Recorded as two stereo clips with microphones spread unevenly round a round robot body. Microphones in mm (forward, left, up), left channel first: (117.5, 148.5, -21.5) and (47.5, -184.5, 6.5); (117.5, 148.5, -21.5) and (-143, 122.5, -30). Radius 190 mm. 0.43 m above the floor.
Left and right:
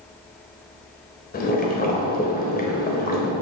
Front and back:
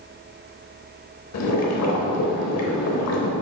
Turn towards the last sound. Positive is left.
turn(degrees=20)